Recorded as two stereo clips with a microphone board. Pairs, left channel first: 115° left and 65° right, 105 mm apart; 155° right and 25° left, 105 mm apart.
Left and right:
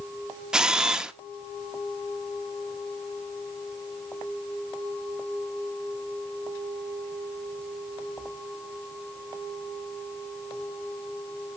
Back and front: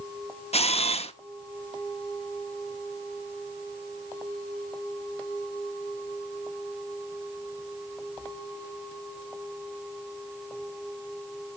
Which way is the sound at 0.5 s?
150° right.